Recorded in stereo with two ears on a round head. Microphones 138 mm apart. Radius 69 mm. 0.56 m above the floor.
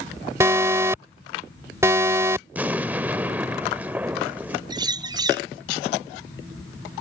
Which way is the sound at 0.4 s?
20° right (ahead or behind).